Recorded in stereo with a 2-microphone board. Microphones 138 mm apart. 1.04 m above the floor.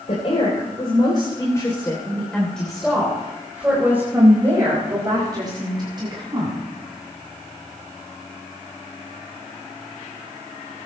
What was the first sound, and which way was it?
A woman speaking, 55° left (ahead or behind).